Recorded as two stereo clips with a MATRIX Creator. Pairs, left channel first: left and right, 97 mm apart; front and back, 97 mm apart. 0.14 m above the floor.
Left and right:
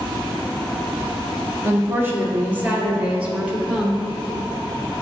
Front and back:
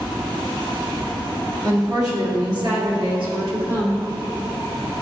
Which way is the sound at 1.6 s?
140° right.